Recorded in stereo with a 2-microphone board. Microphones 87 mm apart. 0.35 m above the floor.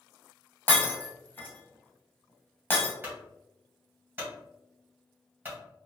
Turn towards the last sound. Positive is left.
turn(degrees=-20)  # may be behind; listen again after turning